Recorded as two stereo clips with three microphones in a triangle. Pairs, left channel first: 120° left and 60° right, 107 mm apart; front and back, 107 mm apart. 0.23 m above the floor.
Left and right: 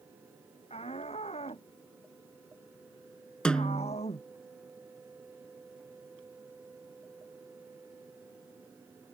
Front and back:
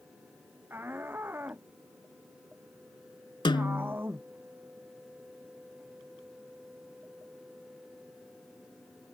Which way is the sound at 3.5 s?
40° left.